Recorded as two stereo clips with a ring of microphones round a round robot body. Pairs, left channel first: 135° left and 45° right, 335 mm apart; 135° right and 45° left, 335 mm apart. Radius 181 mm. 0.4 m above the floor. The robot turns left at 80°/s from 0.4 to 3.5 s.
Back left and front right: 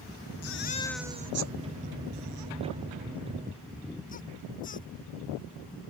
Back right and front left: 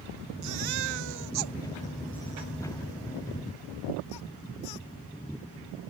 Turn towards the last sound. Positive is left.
turn(degrees=-160)